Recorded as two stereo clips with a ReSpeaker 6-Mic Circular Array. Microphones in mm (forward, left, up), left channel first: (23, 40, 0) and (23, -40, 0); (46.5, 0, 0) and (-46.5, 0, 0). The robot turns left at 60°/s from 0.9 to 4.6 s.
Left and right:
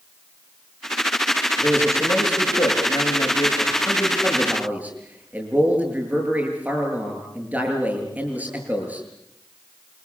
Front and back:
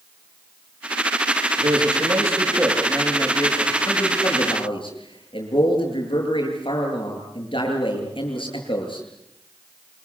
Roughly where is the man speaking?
Behind.